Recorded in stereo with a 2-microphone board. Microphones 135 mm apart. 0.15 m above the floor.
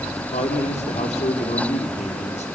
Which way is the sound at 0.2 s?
50° left (ahead or behind).